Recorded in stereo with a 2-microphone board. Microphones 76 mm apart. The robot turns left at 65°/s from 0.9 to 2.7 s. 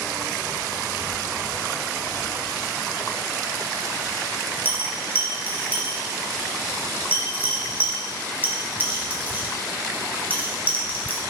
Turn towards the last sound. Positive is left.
turn(degrees=-25)  # may be behind; listen again after turning